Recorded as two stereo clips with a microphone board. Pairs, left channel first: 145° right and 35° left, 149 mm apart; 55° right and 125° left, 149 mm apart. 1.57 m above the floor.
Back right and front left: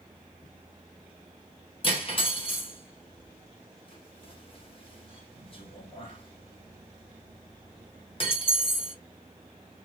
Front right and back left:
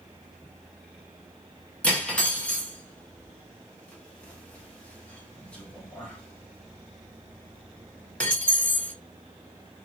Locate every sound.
1.8 s cutlery clinking: 130° right, 1.0 m